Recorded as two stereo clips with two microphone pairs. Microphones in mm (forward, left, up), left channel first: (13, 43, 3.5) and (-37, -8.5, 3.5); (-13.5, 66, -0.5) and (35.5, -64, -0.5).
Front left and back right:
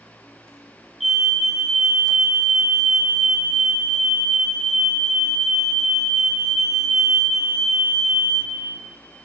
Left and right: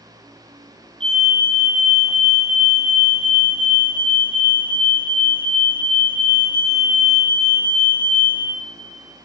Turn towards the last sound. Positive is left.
turn(degrees=-45)